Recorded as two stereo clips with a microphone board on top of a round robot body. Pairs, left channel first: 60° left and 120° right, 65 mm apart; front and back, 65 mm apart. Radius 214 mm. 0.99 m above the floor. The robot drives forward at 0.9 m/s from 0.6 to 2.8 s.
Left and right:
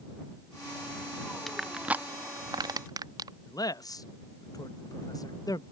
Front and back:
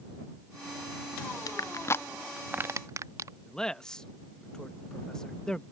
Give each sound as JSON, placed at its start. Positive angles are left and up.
{"t": 1.5, "sound": "crushing", "azimuth_deg": -30}
{"t": 3.5, "sound": "a man speaking", "azimuth_deg": 80}